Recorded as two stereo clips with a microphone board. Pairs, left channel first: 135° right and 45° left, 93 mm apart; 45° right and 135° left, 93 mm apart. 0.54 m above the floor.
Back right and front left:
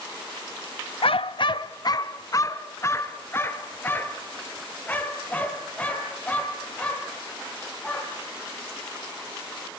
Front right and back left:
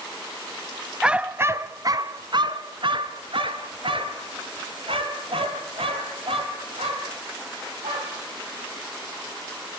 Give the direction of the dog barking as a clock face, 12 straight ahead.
5 o'clock.